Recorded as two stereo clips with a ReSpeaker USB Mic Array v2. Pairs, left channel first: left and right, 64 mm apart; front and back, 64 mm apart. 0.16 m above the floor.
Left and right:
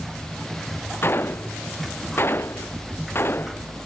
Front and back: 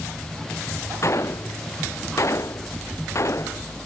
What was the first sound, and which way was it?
A gunshot, 35° left.